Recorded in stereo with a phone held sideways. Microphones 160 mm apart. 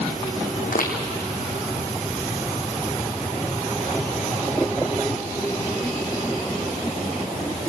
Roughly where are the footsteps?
Left.